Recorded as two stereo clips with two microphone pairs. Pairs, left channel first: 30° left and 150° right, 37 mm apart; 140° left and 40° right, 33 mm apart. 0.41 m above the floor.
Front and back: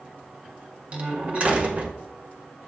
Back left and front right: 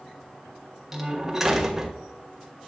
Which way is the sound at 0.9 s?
115° right.